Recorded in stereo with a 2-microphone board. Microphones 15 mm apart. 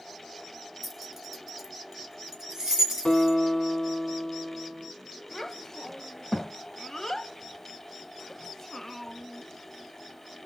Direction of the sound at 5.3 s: 25° left (ahead or behind).